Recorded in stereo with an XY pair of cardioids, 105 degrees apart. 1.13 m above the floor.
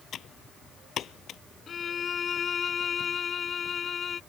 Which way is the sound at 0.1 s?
60° left.